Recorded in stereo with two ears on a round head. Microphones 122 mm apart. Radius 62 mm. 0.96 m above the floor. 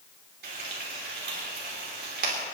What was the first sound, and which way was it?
Frying, 80° right.